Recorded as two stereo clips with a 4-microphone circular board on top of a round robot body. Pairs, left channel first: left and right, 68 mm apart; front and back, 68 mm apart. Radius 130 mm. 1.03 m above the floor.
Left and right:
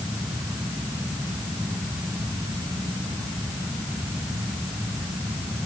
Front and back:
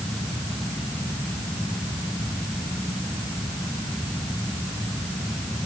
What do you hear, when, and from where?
Only background noise.